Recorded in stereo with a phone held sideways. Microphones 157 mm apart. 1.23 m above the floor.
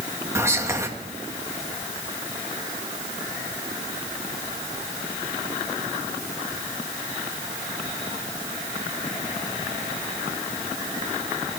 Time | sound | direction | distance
0.3 | whispering | 20° right (ahead or behind) | 2 m